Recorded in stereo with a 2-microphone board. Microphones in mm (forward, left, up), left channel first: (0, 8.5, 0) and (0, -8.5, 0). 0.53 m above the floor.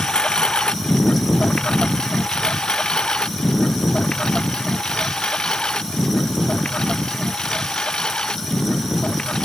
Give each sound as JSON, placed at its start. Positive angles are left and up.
{"t": 0.0, "sound": "a lawn mower", "side_deg": 80}